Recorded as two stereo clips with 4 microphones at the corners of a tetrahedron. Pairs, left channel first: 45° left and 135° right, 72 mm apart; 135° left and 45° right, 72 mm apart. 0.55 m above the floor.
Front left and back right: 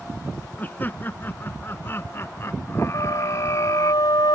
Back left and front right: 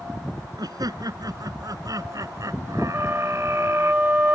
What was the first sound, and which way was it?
Laughter, 20° right.